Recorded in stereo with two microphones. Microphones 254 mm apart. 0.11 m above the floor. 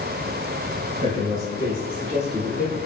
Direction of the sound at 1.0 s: 25° right (ahead or behind).